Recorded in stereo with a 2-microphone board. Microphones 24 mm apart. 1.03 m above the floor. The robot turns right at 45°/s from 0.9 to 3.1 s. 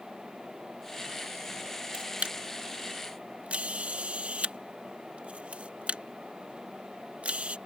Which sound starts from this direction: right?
A camera shutter, at 1.9 s.